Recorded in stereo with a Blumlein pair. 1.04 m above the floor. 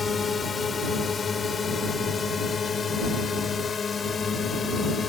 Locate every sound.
0.0 s a drone: 15° left; by 5.1 s 20° left